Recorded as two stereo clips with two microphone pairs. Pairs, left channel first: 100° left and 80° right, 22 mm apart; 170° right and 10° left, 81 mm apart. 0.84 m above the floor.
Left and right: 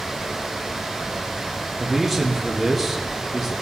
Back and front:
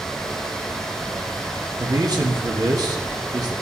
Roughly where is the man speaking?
Ahead.